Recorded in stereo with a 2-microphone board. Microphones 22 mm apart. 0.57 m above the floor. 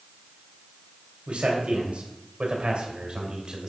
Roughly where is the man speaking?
Right.